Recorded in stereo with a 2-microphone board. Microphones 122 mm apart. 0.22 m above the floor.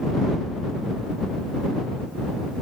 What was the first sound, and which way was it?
Only background noise.